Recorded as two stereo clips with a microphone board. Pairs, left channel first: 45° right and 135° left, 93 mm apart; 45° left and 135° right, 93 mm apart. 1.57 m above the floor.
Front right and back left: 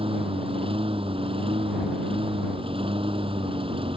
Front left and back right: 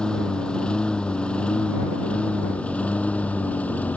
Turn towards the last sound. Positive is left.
turn(degrees=120)